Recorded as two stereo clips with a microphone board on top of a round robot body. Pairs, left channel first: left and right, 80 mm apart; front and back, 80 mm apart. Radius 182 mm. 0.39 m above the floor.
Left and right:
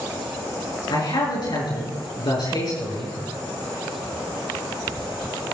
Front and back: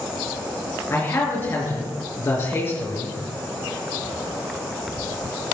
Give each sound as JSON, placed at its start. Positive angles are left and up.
{"t": 0.9, "sound": "a man speaking", "azimuth_deg": 60, "distance_m": 7.5}